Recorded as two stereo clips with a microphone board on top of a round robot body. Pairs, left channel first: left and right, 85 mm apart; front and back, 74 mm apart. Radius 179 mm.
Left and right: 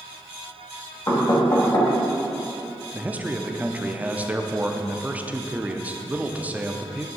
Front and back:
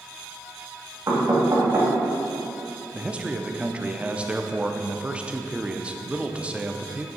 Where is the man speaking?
130° right, 0.9 m.